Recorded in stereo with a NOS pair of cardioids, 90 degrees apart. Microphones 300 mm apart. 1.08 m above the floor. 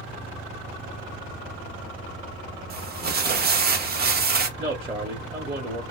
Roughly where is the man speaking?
Ahead.